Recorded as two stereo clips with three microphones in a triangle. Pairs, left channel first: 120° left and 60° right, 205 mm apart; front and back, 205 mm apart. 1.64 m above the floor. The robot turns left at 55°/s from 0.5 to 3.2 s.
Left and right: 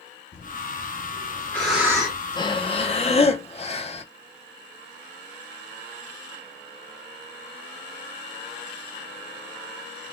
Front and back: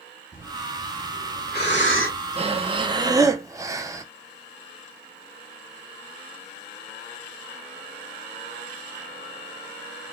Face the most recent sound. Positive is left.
turn(degrees=120)